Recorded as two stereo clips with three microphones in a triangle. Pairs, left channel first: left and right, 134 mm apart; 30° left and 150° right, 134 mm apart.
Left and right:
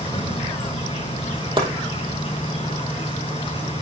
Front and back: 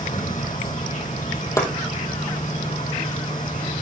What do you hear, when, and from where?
0.0 s an insect: 40° left, 4.5 m
1.6 s chopping: 35° right, 3.5 m